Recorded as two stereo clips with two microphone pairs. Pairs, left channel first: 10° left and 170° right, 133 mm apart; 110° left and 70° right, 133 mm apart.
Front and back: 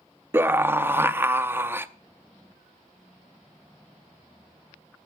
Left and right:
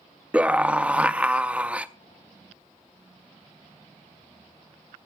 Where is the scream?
135° right, 0.6 m.